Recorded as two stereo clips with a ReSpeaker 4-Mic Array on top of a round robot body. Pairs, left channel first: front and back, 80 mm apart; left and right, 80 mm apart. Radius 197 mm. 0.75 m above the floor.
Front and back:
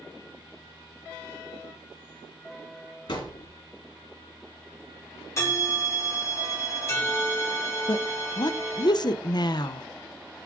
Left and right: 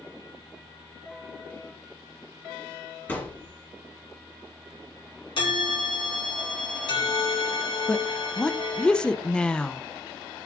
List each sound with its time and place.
3.1 s a thud: 20° left, 5 m
5.4 s a bell: 60° left, 1.3 m
7.9 s a woman speaking: 15° left, 0.7 m